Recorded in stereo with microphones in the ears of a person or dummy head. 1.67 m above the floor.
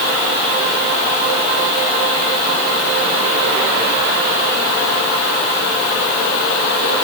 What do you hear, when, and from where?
Only background noise.